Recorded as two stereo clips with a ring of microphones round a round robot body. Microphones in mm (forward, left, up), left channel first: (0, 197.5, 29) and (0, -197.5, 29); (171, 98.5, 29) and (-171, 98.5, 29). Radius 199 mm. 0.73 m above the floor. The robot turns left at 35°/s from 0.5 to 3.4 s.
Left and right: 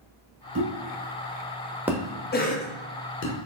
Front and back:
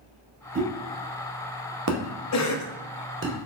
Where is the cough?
30° left, 0.6 m; by 2.7 s 15° left, 0.6 m.